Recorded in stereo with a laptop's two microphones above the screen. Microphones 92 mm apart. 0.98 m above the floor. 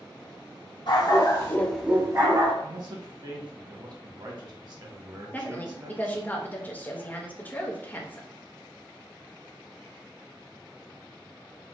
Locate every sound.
0.9 s a dog barking: 60° left (ahead or behind), 1.3 m; by 2.5 s 60° right (ahead or behind), 1.2 m
2.6 s a man speaking: 55° right (ahead or behind), 1.1 m
5.3 s a woman speaking: 20° left (ahead or behind), 0.6 m